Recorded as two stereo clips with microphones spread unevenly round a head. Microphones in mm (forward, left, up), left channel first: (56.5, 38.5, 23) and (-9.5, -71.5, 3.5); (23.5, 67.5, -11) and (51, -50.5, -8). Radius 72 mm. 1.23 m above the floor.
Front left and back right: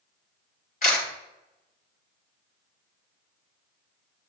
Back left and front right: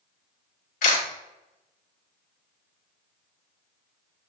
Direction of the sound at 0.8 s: 100° left.